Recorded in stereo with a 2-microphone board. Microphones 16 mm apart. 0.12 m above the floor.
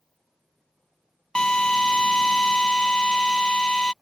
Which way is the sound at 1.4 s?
65° left (ahead or behind).